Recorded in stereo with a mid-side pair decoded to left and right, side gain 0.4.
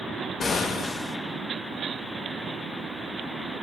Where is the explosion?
50° left, 0.8 m.